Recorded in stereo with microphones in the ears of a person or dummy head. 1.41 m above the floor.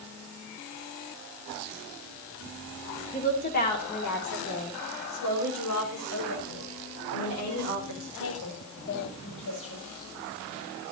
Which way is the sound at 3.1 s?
40° left (ahead or behind).